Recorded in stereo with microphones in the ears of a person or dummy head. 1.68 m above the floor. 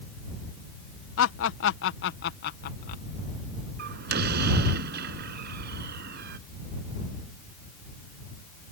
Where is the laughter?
90° left; by 3.0 s 55° left (ahead or behind).